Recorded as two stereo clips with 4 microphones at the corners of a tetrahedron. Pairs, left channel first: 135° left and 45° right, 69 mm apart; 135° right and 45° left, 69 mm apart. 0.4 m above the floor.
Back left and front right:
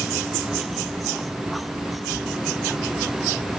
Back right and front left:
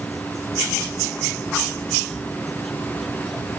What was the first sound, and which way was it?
Only background noise.